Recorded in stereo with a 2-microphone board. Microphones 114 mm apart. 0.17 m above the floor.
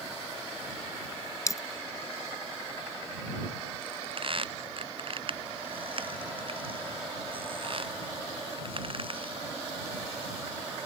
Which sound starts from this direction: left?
A dropped coin, at 1.5 s.